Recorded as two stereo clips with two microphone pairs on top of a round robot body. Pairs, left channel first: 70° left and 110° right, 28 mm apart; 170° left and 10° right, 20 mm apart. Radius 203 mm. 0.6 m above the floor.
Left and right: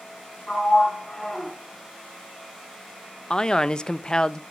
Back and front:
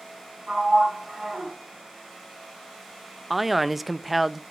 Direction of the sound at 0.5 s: 5° left.